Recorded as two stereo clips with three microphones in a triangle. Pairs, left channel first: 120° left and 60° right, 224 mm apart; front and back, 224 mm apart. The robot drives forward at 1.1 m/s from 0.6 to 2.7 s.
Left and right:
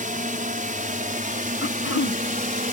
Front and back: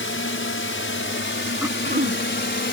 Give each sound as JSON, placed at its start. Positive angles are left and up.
{"t": 0.0, "sound": "a drone", "azimuth_deg": -10}
{"t": 1.6, "sound": "throat clearing", "azimuth_deg": 100}